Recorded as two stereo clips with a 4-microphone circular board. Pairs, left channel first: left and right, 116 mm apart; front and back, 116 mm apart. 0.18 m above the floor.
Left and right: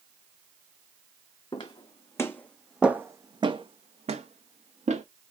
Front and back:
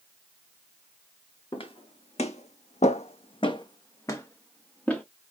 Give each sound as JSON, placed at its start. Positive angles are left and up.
{"t": 1.5, "sound": "footsteps", "azimuth_deg": 40, "distance_m": 0.9}